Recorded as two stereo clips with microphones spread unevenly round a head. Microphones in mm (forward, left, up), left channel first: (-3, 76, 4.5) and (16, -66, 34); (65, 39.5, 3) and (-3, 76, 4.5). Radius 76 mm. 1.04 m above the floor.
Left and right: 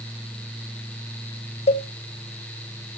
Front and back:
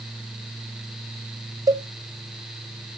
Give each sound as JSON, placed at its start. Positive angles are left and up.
{"t": 1.7, "sound": "a cowbell", "azimuth_deg": 115, "distance_m": 0.8}